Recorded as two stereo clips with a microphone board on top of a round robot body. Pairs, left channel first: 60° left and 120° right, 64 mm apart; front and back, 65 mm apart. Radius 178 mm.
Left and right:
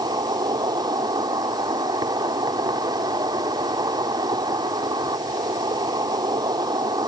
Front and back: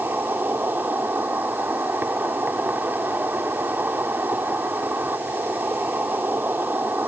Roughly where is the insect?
Behind right.